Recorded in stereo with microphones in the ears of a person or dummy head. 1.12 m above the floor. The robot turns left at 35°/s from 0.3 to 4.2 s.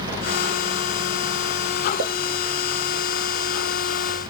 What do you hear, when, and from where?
2.0 s a pop: 55° right (ahead or behind), 0.5 m; by 2.1 s 50° right (ahead or behind), 0.5 m